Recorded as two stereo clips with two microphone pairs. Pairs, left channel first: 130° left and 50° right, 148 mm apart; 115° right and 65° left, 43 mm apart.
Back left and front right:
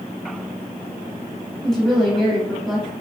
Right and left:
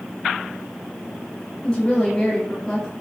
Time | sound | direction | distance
1.6 | a woman speaking | 145° right | 1.2 m